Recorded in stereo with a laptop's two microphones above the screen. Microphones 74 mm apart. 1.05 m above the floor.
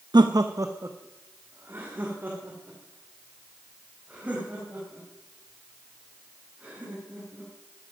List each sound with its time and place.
0.1 s laughter: 75° right (ahead or behind), 0.6 m; by 7.5 s 20° right (ahead or behind), 8 m